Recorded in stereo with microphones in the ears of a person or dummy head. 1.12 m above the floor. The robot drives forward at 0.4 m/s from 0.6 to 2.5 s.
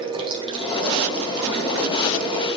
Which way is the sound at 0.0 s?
25° right (ahead or behind).